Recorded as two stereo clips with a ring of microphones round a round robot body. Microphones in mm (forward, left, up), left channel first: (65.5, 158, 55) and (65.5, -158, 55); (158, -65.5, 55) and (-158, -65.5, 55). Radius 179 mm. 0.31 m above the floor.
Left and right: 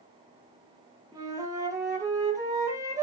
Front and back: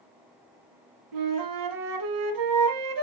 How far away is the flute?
About 2.0 m.